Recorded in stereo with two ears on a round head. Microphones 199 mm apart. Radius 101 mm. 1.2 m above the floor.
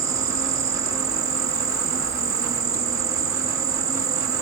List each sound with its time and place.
0.0 s an insect: 15° right (ahead or behind)